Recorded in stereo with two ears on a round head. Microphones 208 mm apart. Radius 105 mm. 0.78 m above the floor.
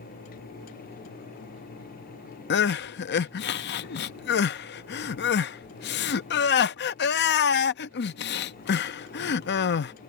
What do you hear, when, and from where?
2.5 s crying: 50° left (ahead or behind)